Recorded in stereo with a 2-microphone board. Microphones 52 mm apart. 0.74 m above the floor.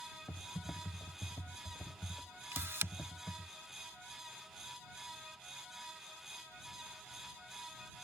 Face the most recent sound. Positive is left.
turn(degrees=-55)  # may be behind; listen again after turning